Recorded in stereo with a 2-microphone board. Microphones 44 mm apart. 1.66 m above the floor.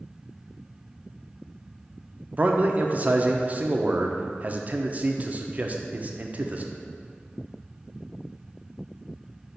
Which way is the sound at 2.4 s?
35° right (ahead or behind).